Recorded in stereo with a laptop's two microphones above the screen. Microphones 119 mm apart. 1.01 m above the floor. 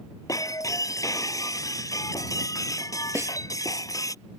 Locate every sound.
0.3 s breaking glass: 30° left (ahead or behind)
3.1 s a snare drum: 20° right (ahead or behind)